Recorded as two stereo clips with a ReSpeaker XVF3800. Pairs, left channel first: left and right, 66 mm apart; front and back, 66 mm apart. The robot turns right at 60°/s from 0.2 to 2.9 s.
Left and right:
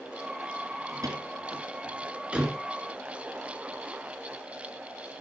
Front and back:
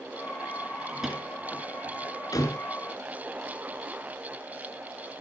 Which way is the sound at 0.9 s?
105° right.